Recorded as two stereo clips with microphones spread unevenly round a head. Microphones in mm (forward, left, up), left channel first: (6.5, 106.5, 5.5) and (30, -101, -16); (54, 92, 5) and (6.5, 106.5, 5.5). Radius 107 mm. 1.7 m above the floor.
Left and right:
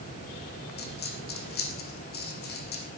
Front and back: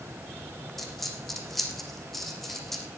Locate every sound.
0.8 s a dropped coin: 70° left, 3.5 m